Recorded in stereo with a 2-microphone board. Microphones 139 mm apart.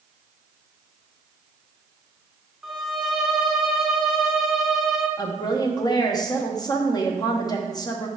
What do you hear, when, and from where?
2.6 s a violin: centre (ahead or behind), 0.9 m
5.2 s a woman speaking: 30° left (ahead or behind), 0.9 m